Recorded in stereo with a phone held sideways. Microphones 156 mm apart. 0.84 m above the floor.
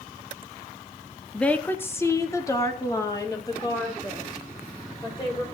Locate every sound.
1.3 s a woman speaking: 5° left (ahead or behind), 0.9 m; by 5.4 s 25° left (ahead or behind), 4.5 m